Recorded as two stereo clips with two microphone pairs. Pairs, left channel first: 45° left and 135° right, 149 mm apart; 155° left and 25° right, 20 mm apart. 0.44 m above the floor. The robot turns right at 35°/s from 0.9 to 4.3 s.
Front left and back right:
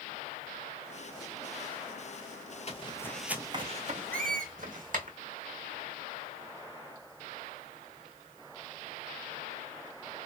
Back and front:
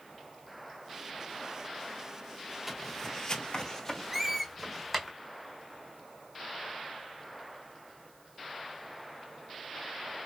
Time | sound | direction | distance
2.7 | footsteps | 60° left | 0.6 m
4.1 | a squeak | 115° right | 0.6 m